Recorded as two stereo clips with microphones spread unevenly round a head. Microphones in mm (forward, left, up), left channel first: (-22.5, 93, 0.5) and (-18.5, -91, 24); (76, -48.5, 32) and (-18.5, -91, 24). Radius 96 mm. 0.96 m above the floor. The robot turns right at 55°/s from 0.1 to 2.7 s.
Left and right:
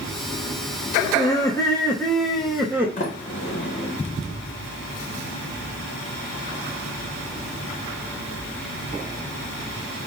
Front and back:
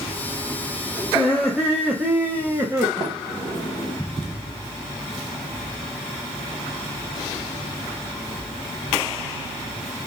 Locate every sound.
1.1 s laughter: 105° left, 0.7 m; by 2.9 s 170° right, 0.7 m
3.0 s a sliding door: 140° left, 1.5 m